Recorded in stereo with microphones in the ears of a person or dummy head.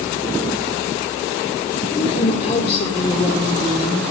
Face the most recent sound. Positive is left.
turn(degrees=30)  # may be behind; listen again after turning